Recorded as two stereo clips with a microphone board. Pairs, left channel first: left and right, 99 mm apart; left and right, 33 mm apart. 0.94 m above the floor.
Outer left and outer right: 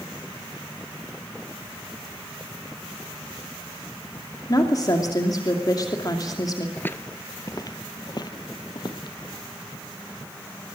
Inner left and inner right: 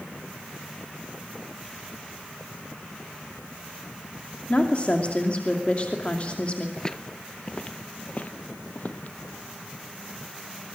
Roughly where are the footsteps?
Centre.